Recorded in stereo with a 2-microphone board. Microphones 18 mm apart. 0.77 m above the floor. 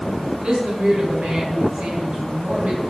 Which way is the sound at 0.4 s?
55° right (ahead or behind).